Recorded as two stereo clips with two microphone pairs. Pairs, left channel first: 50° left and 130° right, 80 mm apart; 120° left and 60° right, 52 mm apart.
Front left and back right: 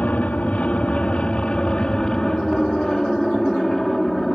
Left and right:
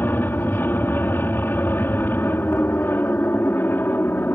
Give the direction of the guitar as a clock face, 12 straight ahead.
No guitar in this recording.